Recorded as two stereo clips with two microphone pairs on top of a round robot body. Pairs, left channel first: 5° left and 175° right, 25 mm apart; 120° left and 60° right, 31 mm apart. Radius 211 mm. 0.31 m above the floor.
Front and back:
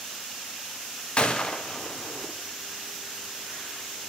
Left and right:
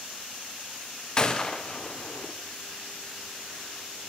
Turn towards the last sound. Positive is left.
turn(degrees=55)